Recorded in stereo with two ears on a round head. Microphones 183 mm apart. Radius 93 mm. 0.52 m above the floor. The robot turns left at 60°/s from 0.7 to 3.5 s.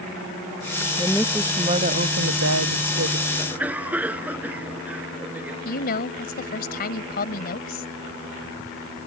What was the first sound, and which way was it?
A woman speaking, 15° left.